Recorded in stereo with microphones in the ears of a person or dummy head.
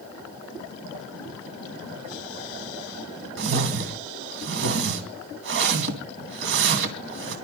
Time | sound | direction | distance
3.4 | a whoosh | 65° right (ahead or behind) | 2.5 m